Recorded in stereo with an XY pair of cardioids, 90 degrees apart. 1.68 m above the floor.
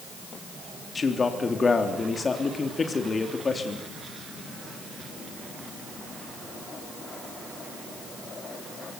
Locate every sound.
0.9 s a man speaking: 35° left, 3 m